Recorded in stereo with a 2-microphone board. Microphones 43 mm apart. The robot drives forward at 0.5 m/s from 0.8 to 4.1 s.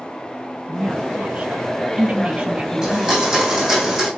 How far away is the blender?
About 4.5 m.